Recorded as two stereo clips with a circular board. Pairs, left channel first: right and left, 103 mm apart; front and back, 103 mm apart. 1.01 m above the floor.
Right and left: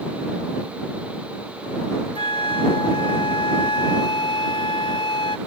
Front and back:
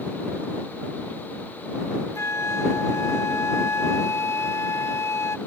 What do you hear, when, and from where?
2.1 s a flute: 60° right